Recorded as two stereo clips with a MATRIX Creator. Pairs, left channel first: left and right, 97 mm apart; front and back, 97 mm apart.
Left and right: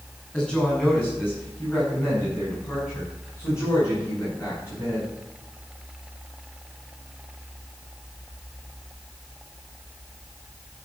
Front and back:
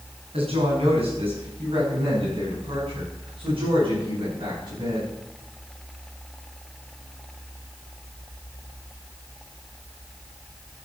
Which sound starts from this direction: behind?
A woman speaking, at 0.3 s.